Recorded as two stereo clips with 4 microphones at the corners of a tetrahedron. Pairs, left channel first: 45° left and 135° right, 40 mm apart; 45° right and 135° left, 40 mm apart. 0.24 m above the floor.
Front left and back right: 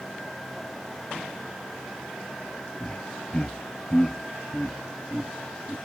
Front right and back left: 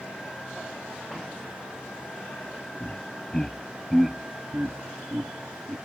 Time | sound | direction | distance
2.8 | laughter | 10° right | ?